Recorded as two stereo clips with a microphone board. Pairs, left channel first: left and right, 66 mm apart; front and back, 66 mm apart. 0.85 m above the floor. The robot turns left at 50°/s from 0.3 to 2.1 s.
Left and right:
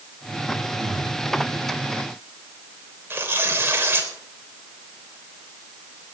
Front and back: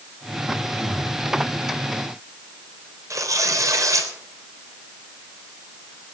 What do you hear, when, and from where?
0.8 s breathing: 70° right, 6.5 m; by 1.1 s 90° right, 6.5 m
3.1 s tearing paper: 145° right, 3.5 m